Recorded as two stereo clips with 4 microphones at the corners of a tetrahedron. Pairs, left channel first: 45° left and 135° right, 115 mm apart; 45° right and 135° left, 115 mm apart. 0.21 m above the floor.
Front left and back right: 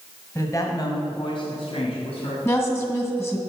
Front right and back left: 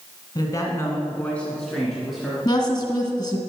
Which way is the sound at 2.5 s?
10° right.